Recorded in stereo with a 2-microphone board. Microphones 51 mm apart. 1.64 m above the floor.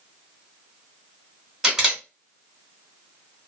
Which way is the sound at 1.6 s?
5° right (ahead or behind).